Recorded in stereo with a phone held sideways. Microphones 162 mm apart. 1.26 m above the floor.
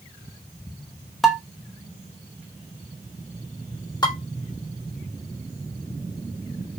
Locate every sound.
1.2 s dishes clattering: centre (ahead or behind), 1.0 m
4.0 s dishes clattering: 25° left (ahead or behind), 2.5 m